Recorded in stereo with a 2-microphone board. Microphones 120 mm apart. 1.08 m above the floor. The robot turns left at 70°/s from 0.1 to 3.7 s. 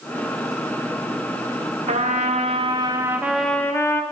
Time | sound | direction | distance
1.9 | a trumpet | 75° right | 0.5 m